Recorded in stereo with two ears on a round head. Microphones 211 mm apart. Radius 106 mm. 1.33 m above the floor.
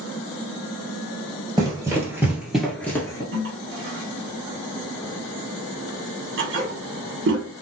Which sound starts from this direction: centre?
Running footsteps, at 1.6 s.